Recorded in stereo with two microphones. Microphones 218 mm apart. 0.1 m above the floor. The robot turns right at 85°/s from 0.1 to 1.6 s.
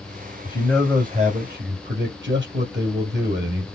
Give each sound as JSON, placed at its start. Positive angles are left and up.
{"t": 0.5, "sound": "a man speaking", "azimuth_deg": 150, "distance_m": 2.5}